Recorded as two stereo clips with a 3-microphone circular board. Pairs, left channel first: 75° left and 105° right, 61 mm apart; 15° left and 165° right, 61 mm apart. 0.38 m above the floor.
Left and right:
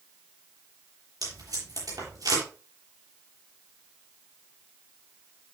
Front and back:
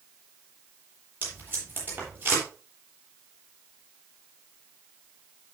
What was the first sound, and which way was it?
Tape being pulled, 105° right.